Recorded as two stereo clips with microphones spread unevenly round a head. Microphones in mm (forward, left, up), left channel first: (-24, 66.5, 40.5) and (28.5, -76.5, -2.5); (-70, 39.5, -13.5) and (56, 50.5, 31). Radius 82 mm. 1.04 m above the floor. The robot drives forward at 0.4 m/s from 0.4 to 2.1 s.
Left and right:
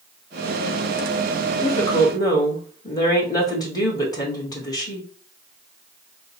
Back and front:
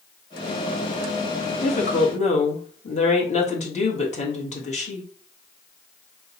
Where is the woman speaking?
Straight behind, 1.1 m.